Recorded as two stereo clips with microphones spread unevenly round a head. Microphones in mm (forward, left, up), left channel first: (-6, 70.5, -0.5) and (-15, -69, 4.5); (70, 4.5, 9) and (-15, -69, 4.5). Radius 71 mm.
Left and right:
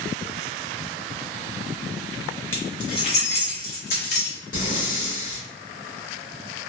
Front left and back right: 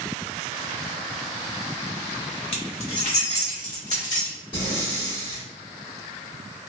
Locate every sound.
2.5 s keys jangling: 10° left, 0.8 m; by 4.4 s 80° left, 1.4 m
4.5 s breathing: 80° left, 1.2 m